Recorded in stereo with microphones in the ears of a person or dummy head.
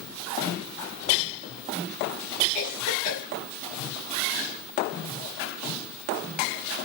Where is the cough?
25° left (ahead or behind), 1.8 m.